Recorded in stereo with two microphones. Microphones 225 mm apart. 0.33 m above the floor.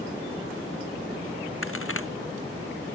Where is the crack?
70° left (ahead or behind).